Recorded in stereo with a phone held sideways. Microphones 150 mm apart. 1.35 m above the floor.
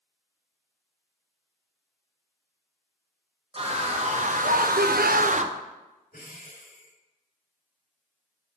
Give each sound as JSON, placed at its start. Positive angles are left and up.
{"t": 3.5, "sound": "a scream", "side_deg": -40, "distance_m": 1.1}
{"t": 6.1, "sound": "breathing", "side_deg": 75, "distance_m": 2.0}